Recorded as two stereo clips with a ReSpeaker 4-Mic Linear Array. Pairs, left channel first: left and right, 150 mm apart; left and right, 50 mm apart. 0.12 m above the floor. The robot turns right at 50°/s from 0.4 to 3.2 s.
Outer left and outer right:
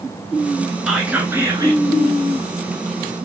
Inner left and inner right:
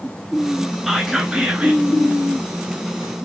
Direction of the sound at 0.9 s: 170° right.